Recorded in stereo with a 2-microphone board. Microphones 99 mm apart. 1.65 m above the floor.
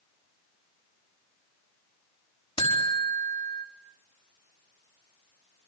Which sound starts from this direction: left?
A buzzer, at 2.6 s.